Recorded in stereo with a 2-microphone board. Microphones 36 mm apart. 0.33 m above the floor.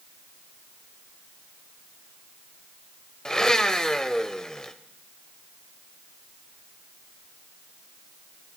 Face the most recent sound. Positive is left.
turn(degrees=15)  # may be behind; listen again after turning